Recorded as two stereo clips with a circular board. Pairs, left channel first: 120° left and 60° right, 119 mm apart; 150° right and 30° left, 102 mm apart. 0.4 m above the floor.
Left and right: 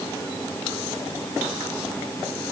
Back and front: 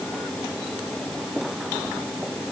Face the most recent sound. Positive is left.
No sound to turn to.